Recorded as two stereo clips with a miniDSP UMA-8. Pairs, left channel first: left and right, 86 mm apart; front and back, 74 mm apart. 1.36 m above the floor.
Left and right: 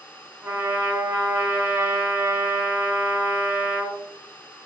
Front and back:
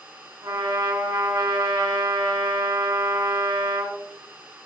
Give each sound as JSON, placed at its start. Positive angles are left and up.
{"t": 0.4, "sound": "a trumpet", "azimuth_deg": -155, "distance_m": 0.7}